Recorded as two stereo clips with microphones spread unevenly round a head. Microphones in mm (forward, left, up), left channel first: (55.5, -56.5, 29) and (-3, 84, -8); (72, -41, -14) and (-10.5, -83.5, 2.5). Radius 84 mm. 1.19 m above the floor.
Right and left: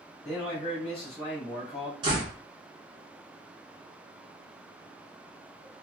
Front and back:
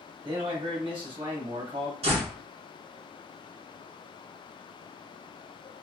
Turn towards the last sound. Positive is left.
turn(degrees=180)